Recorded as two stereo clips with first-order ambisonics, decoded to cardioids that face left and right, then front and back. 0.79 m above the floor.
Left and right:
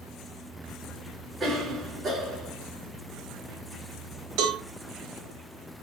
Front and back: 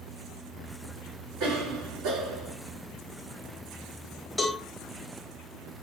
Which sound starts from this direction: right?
A cowbell, at 4.4 s.